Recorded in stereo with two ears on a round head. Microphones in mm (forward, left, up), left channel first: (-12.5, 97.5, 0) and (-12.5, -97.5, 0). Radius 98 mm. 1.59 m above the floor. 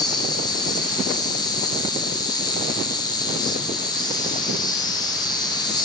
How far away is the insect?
About 0.7 m.